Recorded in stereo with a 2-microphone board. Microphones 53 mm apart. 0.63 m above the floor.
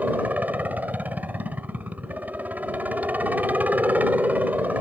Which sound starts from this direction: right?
A helicopter, at 0.0 s.